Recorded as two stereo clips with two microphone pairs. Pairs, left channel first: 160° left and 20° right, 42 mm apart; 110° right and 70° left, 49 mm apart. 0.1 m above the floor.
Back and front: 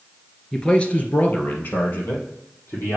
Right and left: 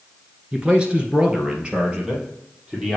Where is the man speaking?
100° left, 1.2 m; by 3.0 s 145° left, 3 m.